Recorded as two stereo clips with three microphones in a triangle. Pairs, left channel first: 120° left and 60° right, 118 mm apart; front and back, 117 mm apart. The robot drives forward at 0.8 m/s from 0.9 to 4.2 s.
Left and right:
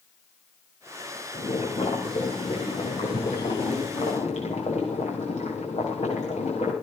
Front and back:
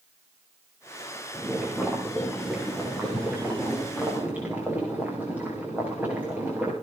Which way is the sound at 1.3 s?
90° left.